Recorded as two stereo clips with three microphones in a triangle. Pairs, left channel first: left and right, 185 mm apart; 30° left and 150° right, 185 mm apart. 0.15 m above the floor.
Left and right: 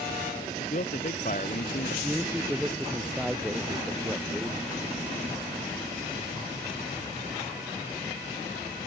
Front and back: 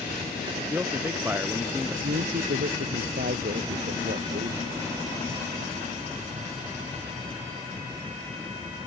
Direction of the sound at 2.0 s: 175° right.